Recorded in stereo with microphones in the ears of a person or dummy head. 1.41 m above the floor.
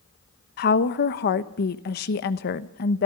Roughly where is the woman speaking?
Left.